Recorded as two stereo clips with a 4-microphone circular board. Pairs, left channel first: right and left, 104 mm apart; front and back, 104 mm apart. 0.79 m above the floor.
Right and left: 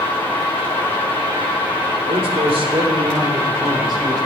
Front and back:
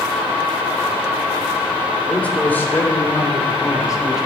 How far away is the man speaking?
About 2.5 m.